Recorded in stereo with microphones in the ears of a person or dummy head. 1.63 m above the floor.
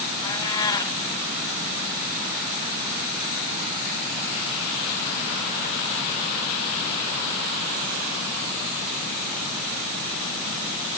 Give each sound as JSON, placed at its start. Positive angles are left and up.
{"t": 0.2, "sound": "a cat meowing", "side_deg": 20, "distance_m": 4.0}